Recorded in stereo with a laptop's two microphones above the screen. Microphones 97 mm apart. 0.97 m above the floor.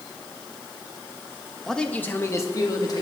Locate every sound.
1.7 s a man speaking: centre (ahead or behind), 0.7 m; by 3.0 s 45° left (ahead or behind), 1.5 m